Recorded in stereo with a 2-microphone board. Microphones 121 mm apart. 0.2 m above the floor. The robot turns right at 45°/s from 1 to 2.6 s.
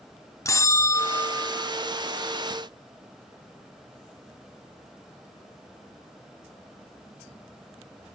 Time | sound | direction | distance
0.5 | a bell | 25° left (ahead or behind) | 0.5 m